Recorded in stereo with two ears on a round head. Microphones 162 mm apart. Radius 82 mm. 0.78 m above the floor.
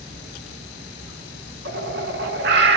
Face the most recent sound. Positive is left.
turn(degrees=-60)  # may be behind; listen again after turning